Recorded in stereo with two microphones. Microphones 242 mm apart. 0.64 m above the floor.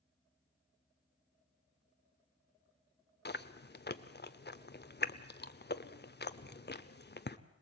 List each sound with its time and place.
3.2 s chewing: 40° left (ahead or behind), 0.7 m